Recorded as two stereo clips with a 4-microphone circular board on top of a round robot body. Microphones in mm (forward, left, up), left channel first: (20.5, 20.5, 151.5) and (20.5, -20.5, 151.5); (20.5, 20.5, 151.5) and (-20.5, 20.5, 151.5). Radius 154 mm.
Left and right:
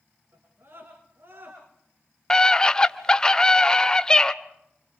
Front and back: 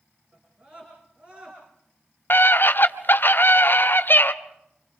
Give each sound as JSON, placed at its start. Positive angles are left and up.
{"t": 0.3, "sound": "a scream", "azimuth_deg": -115, "distance_m": 7.0}
{"t": 2.3, "sound": "a scream", "azimuth_deg": 20, "distance_m": 1.5}